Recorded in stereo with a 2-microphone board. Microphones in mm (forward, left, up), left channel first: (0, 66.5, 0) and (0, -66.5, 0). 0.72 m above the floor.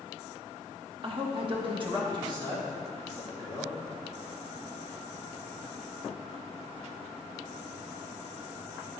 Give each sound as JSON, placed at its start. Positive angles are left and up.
{"t": 1.0, "sound": "a man speaking", "side_deg": -40, "distance_m": 1.0}